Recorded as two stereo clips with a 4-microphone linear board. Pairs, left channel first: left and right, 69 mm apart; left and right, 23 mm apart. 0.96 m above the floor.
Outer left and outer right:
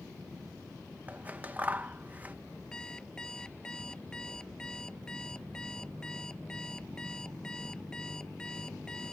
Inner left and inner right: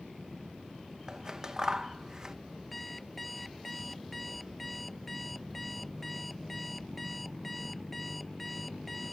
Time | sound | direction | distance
1.1 | scissors | 25° right (ahead or behind) | ?
2.7 | an alarm clock | 10° left (ahead or behind) | ?